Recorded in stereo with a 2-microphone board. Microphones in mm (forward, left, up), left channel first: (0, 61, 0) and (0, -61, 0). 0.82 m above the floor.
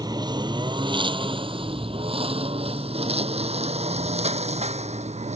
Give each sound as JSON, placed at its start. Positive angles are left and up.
{"t": 0.0, "sound": "a lawn mower", "side_deg": -30}